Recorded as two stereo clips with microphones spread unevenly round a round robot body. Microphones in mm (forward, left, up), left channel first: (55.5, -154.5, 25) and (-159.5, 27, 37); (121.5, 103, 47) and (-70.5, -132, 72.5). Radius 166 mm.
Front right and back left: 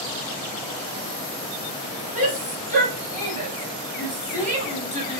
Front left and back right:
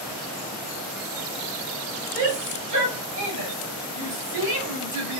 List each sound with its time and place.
2.1 s a shout: 160° right, 3 m; by 5.2 s 155° right, 1.3 m